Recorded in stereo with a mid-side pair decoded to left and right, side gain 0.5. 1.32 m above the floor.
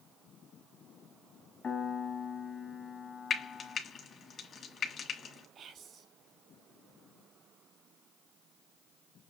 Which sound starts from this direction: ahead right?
Whispering, at 5.5 s.